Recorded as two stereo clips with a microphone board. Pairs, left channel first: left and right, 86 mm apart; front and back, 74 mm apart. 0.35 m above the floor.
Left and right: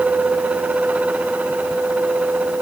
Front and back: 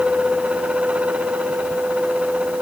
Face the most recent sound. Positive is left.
No sound to turn to.